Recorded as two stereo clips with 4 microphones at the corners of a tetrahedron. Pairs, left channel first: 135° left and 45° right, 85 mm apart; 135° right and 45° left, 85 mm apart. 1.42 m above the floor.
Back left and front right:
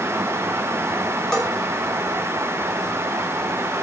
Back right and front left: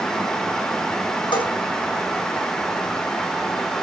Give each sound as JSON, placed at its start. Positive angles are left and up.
{"t": 1.3, "sound": "a bell", "azimuth_deg": -145, "distance_m": 6.5}